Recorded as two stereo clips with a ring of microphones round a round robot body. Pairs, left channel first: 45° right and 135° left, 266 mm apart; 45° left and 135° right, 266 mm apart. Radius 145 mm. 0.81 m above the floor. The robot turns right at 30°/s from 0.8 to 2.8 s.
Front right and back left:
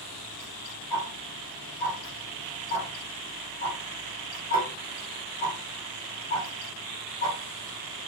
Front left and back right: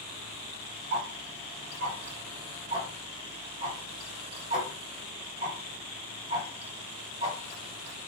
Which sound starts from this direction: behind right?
Ticking, at 0.9 s.